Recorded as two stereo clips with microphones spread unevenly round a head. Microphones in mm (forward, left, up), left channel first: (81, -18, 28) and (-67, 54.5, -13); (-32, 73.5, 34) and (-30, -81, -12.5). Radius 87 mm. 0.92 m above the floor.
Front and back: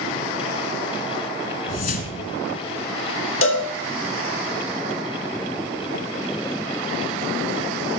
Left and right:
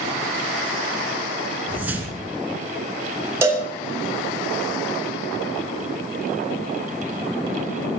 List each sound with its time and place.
1.7 s a whoosh: straight ahead, 1.9 m
3.4 s a cowbell: 20° right, 2.5 m